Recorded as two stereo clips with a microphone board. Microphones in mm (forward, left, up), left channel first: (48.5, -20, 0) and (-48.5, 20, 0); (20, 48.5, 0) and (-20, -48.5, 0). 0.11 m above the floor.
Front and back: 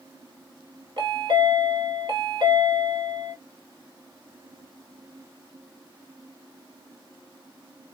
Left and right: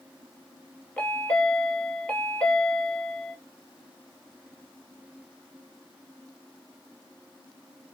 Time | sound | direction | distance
1.0 | a chime | 140° left | 1.7 m